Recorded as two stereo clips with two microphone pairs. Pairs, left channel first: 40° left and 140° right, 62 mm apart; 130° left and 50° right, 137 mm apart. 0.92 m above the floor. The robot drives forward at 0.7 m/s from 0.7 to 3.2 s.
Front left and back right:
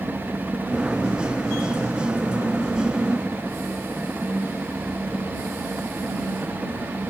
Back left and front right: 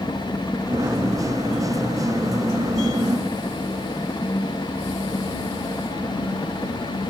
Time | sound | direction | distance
0.0 | a helicopter | straight behind | ?